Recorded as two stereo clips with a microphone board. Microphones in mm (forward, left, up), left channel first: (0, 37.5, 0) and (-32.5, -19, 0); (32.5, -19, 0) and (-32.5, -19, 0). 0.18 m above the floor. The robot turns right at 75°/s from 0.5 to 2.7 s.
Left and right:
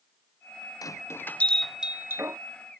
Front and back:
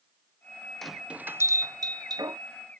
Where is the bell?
85° left; by 2.4 s 155° right.